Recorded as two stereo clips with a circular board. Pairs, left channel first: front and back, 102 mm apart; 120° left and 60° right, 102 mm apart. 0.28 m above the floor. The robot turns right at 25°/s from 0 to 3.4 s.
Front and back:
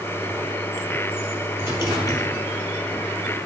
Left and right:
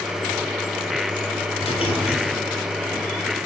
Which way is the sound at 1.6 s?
115° left.